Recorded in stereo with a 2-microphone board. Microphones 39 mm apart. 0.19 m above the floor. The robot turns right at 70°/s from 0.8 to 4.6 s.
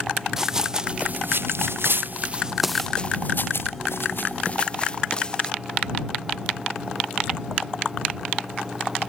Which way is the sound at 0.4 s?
15° right (ahead or behind).